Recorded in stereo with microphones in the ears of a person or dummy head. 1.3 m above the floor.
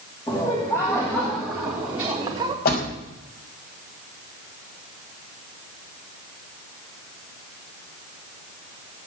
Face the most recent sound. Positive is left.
turn(degrees=60)  # may be behind; listen again after turning